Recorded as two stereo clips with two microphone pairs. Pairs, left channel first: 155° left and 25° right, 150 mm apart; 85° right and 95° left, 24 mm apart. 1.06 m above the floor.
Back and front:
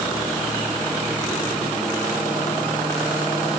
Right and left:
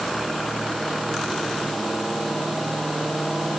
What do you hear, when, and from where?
Only background noise.